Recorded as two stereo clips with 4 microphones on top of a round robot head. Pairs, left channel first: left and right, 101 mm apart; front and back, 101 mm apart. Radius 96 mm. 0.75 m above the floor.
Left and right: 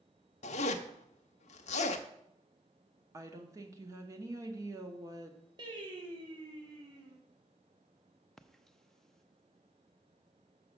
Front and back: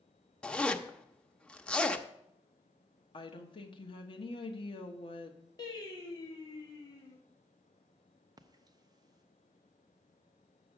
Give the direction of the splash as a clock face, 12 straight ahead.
6 o'clock.